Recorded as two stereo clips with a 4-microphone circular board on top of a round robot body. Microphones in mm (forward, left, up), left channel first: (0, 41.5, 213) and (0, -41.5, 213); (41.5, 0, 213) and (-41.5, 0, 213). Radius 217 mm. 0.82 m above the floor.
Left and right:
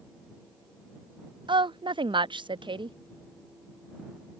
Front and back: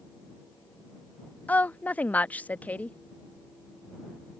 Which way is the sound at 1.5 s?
70° right.